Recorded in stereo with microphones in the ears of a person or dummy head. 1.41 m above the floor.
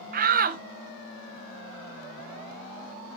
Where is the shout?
45° right (ahead or behind), 0.6 m.